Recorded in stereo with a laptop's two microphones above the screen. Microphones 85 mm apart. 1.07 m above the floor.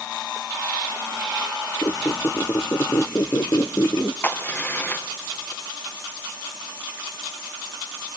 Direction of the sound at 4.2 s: 25° left (ahead or behind).